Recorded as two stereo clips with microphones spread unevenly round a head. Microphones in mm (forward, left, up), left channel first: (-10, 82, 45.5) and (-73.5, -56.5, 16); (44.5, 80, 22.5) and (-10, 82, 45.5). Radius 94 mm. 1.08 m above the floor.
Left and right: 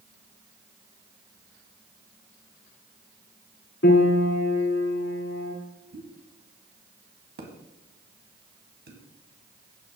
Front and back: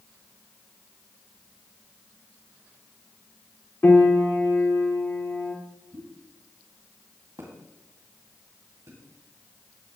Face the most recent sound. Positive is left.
turn(degrees=-130)